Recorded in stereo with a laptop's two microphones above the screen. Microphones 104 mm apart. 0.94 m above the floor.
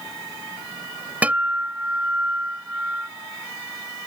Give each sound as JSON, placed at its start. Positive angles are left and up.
{"t": 1.2, "sound": "a guitar", "side_deg": -15}